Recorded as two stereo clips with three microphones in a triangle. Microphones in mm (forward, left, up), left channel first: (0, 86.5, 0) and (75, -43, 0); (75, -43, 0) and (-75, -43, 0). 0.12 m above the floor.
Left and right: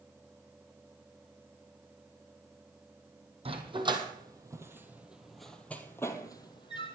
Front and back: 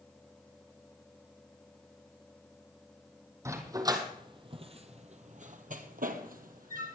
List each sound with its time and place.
3.5 s a dog barking: 110° right, 1.8 m; by 7.0 s 170° left, 1.6 m